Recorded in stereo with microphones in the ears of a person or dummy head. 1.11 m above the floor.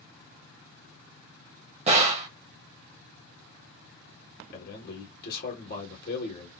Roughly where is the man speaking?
Left.